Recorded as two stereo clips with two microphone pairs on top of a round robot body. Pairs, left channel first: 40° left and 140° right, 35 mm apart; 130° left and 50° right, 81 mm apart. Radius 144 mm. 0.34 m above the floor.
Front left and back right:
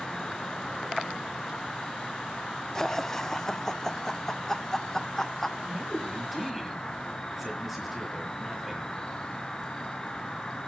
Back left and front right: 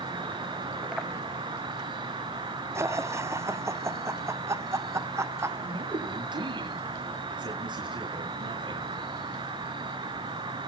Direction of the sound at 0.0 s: 35° right.